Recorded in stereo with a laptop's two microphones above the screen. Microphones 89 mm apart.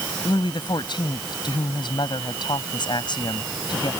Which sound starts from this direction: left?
A woman speaking, at 0.2 s.